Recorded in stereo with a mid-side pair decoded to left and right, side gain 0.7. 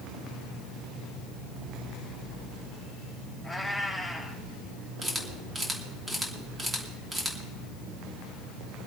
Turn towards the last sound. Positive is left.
turn(degrees=-20)